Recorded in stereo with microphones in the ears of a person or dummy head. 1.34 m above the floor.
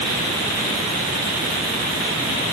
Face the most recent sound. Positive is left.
No sound to turn to.